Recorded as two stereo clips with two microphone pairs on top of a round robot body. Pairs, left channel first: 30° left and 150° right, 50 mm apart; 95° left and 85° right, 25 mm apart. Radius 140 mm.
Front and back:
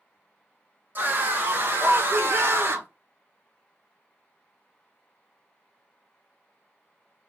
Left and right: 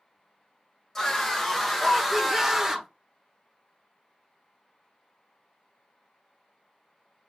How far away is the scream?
About 1.8 m.